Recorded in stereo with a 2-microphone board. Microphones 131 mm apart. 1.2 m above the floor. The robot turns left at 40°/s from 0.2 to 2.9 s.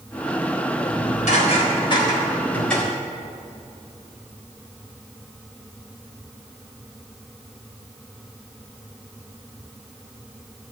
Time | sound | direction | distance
0.8 | dishes clattering | 80° left | 4 m